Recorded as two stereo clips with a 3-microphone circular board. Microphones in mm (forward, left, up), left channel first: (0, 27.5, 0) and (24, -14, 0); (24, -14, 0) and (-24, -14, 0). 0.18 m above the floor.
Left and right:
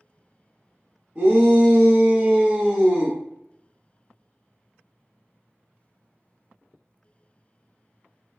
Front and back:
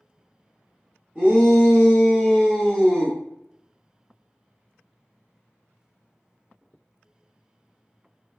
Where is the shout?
130° right, 1.4 m; by 3.2 s 20° left, 1.1 m.